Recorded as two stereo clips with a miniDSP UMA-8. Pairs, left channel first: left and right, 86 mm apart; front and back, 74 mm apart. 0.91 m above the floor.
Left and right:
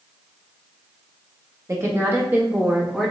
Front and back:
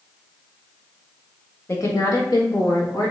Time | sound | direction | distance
1.7 | a woman speaking | 45° right | 1.2 m